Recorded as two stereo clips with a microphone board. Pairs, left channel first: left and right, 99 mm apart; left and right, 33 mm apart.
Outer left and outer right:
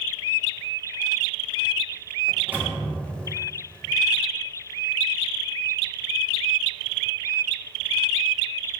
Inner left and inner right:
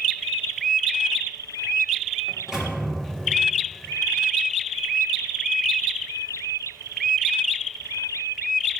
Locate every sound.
2.3 s a microwave: 15° right (ahead or behind), 1.0 m